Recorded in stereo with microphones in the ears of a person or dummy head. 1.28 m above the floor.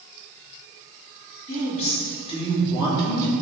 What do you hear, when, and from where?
1.5 s a woman speaking: 35° left (ahead or behind), 3.5 m; by 3.3 s 15° left (ahead or behind), 3 m